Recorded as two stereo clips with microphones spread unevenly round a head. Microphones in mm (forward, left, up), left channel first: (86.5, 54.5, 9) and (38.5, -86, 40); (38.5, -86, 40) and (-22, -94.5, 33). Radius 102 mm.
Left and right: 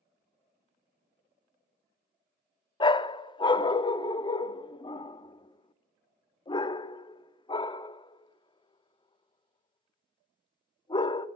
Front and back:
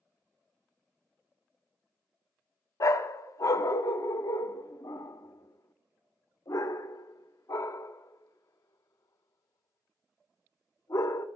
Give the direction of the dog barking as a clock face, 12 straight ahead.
12 o'clock.